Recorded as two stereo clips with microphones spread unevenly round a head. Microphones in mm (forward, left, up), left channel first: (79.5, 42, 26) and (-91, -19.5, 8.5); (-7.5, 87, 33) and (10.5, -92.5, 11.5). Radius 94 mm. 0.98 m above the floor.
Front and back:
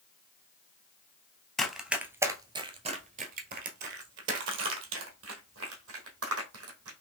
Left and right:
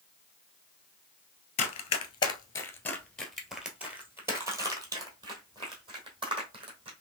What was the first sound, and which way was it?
Running footsteps, 100° left.